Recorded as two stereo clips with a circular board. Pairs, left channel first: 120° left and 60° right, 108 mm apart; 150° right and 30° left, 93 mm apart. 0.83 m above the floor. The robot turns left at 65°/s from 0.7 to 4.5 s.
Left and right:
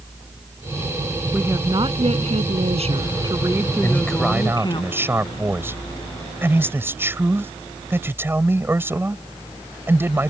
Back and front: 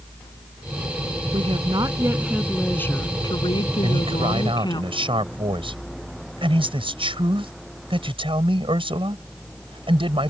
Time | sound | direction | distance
1.3 | a woman speaking | 15° left | ?
3.8 | a man speaking | 55° left | ?